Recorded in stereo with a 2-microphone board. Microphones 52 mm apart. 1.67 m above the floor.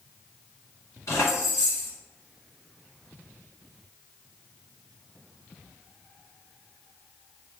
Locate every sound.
1.1 s keys jangling: 70° left (ahead or behind), 1.9 m